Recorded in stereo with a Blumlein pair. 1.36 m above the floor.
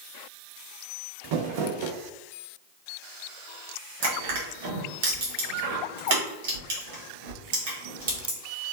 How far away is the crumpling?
About 0.6 m.